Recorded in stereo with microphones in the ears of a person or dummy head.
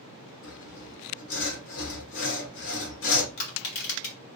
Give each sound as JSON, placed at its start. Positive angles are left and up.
{"t": 0.4, "sound": "sawing", "side_deg": 65, "distance_m": 1.6}
{"t": 3.4, "sound": "crushing", "side_deg": 60, "distance_m": 2.0}